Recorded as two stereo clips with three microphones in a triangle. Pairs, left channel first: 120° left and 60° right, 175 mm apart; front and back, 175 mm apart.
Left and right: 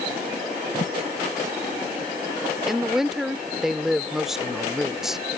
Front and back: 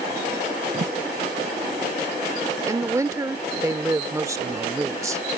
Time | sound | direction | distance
0.7 | a thud | 155° left | ?
2.7 | a woman speaking | 145° right | ?